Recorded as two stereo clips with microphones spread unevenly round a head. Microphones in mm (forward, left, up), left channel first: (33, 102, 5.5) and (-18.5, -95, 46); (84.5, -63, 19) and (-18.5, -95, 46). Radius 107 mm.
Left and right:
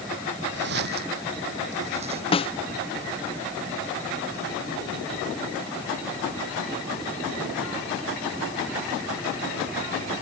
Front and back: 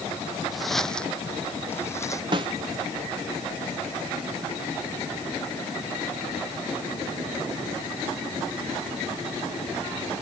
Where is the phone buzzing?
No phone buzzing in this recording.